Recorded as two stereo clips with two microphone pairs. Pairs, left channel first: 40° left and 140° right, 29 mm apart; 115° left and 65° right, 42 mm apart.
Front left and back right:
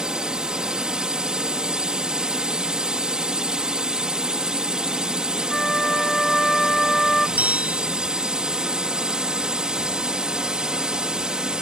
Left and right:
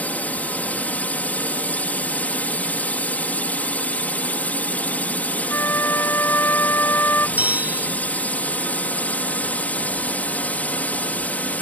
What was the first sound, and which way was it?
A drone, 160° left.